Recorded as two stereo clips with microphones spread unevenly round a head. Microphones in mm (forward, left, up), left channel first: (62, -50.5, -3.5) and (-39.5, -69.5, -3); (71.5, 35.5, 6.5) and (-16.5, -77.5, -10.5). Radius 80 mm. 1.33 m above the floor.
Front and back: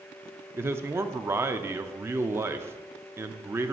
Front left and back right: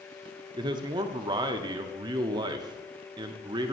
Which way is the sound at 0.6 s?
120° right.